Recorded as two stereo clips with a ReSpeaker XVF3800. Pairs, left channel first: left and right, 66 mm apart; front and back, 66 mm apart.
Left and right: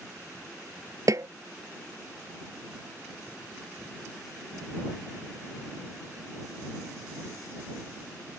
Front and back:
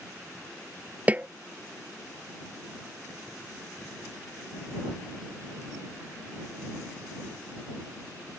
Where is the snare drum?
115° right.